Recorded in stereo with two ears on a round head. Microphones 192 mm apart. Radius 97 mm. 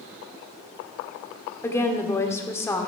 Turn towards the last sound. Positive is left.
turn(degrees=15)  # may be behind; listen again after turning